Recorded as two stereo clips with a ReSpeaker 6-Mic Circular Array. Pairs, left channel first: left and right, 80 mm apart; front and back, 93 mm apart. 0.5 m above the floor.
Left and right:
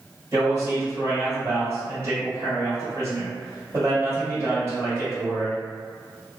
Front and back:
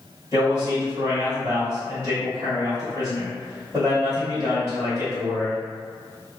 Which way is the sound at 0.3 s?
130° right.